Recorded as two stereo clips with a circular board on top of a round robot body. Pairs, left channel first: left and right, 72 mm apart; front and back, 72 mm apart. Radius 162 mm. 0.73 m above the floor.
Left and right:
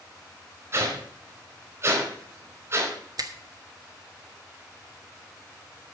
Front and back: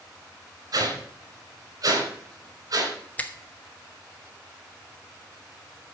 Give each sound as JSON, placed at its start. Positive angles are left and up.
{"t": 0.7, "sound": "a whoosh", "azimuth_deg": -140, "distance_m": 4.5}
{"t": 3.2, "sound": "a finger snap", "azimuth_deg": -70, "distance_m": 1.4}